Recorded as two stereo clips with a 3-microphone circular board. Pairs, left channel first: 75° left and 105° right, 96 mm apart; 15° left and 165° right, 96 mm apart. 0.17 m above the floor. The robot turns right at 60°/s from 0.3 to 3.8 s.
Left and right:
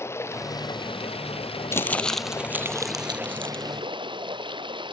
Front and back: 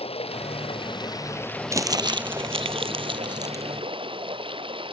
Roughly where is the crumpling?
Behind left.